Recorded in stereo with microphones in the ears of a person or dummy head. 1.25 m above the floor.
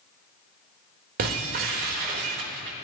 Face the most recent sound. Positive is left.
turn(degrees=-45)  # may be behind; listen again after turning